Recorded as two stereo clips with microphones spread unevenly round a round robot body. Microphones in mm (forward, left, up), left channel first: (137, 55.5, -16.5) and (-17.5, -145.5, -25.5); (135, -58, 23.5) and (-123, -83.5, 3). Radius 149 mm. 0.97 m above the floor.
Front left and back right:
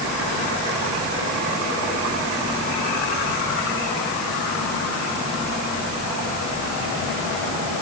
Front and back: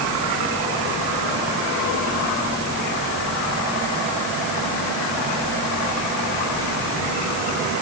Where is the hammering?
I don't hear hammering.